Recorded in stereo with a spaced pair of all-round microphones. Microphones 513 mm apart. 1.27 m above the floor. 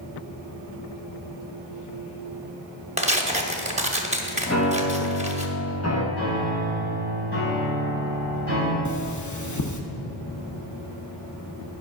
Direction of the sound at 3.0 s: 15° right (ahead or behind).